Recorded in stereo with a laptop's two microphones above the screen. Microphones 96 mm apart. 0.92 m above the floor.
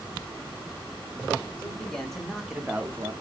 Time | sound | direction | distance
1.6 | a man speaking | 10° left (ahead or behind) | 1.7 m